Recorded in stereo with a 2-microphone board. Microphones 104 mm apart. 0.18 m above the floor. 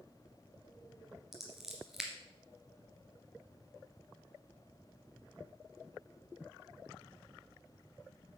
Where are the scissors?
5° right (ahead or behind), 2 m.